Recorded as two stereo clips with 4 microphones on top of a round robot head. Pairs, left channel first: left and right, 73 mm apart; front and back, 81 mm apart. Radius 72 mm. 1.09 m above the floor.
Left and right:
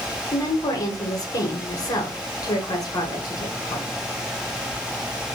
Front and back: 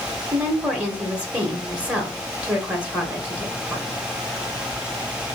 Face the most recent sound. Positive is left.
turn(degrees=105)